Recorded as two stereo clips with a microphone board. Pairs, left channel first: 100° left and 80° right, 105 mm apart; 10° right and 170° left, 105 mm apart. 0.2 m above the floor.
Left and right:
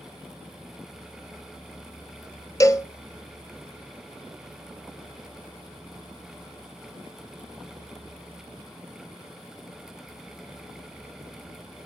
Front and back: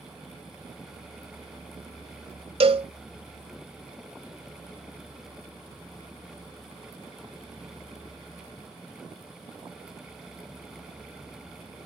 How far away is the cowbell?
About 0.7 m.